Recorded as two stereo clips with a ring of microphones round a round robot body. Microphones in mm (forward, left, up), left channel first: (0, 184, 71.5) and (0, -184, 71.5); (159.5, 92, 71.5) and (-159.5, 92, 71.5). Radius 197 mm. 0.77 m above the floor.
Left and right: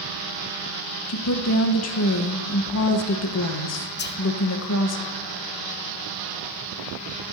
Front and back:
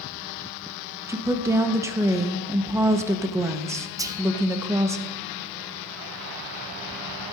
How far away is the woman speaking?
About 1.1 m.